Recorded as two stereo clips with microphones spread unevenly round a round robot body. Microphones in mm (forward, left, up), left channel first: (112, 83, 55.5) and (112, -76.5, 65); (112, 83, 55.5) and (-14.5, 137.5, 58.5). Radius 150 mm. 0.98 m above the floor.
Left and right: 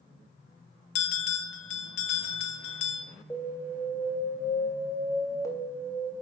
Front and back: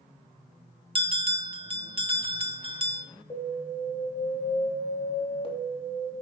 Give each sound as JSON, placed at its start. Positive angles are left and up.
{"t": 0.9, "sound": "a bell", "azimuth_deg": 105, "distance_m": 1.7}
{"t": 3.3, "sound": "an alarm", "azimuth_deg": 20, "distance_m": 3.0}